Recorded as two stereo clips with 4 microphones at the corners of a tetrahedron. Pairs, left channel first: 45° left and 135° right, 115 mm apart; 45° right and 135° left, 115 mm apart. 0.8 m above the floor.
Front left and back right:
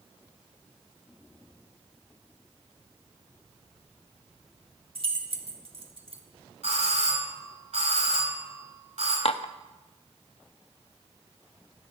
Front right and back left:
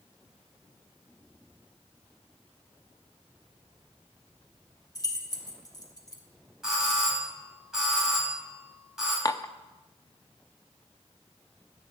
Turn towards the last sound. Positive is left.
turn(degrees=15)